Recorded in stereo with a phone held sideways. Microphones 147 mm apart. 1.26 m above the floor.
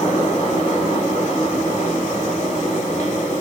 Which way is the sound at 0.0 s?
50° left (ahead or behind).